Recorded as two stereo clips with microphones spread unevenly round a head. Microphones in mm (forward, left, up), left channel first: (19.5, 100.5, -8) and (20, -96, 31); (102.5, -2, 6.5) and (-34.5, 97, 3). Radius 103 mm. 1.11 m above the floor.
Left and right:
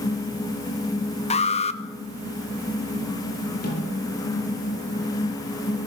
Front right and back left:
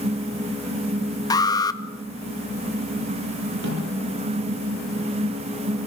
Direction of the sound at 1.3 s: 35° left.